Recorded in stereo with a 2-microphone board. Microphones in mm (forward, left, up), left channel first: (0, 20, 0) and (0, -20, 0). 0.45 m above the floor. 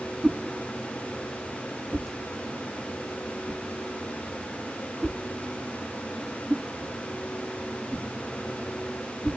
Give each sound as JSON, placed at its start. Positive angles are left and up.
{"t": 0.2, "sound": "a whoosh", "side_deg": -5, "distance_m": 1.0}